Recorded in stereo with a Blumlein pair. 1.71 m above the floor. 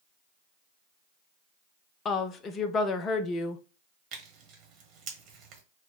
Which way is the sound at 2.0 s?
25° left.